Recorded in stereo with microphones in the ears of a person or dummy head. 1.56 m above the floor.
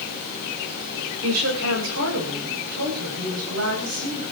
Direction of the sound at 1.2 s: 80° right.